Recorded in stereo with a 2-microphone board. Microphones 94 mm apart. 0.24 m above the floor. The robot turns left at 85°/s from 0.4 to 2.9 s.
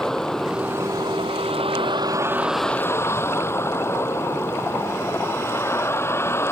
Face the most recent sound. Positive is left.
turn(degrees=150)